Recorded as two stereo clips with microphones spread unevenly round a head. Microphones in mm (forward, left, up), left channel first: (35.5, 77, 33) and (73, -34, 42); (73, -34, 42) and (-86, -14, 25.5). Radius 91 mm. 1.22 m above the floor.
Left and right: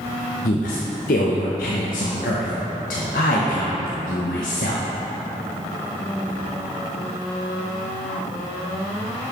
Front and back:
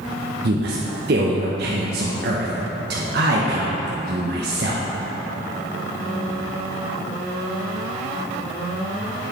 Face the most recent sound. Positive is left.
turn(degrees=135)